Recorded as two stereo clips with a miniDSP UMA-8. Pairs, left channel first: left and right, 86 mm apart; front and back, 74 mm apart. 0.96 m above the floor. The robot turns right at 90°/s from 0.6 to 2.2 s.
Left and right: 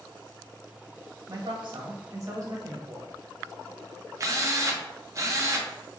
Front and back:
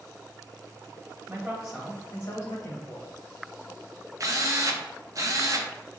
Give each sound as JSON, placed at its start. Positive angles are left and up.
{"t": 1.3, "sound": "a man speaking", "azimuth_deg": -130, "distance_m": 1.4}
{"t": 4.2, "sound": "a drill", "azimuth_deg": -140, "distance_m": 0.7}